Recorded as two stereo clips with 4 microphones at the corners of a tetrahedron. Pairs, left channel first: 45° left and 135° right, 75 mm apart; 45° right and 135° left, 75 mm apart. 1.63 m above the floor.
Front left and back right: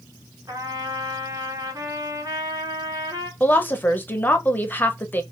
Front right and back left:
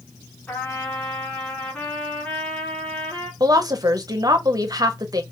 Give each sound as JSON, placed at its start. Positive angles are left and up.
{"t": 0.5, "sound": "a trumpet", "azimuth_deg": -110, "distance_m": 1.1}
{"t": 3.4, "sound": "a woman speaking", "azimuth_deg": 105, "distance_m": 0.6}